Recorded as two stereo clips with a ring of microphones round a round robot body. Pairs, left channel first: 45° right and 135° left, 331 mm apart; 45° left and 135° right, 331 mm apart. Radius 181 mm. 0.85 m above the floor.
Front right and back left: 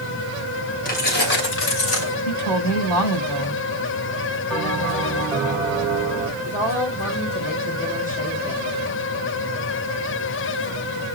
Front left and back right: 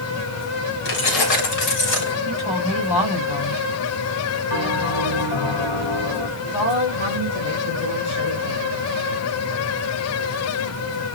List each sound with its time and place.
0.8 s keys jangling: 20° left, 3 m; by 2.1 s straight ahead, 3 m
2.2 s a woman speaking: 40° left, 5 m
4.5 s a bell: 45° left, 5 m
6.4 s a woman speaking: 25° left, 3.5 m